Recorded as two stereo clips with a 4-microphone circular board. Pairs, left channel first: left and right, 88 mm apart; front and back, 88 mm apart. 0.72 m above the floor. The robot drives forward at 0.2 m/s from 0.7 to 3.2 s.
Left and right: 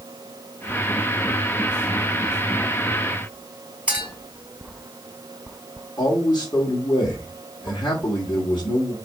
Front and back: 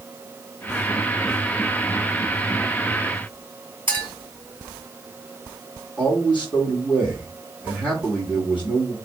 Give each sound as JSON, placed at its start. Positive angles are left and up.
{"t": 3.9, "sound": "a clink", "azimuth_deg": -165, "distance_m": 3.0}
{"t": 6.0, "sound": "a man speaking", "azimuth_deg": 110, "distance_m": 1.5}